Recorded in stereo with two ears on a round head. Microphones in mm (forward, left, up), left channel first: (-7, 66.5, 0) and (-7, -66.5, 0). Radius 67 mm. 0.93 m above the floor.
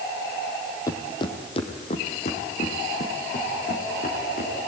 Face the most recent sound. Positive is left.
turn(degrees=60)  # may be behind; listen again after turning